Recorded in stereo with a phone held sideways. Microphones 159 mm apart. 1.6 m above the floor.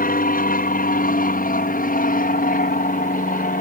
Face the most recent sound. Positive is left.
turn(degrees=60)  # may be behind; listen again after turning